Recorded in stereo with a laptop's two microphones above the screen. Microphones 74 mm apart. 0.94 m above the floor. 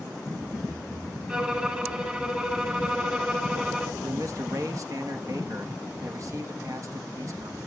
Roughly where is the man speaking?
Right.